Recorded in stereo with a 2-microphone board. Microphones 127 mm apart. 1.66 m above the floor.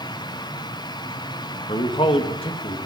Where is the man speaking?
50° left (ahead or behind), 2.5 m.